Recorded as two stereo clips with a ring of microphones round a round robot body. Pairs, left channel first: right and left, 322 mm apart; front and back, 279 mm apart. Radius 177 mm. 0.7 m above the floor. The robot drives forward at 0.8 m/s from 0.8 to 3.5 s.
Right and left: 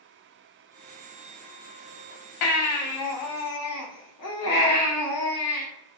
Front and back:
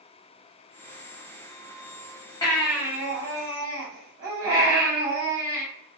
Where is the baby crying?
75° right, 0.8 m; by 5.7 s 135° right, 1.0 m.